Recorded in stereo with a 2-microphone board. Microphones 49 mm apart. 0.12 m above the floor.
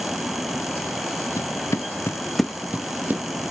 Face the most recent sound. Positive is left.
turn(degrees=-40)  # may be behind; listen again after turning